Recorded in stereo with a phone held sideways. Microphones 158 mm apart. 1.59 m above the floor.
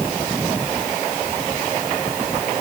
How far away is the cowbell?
No cowbell in this recording.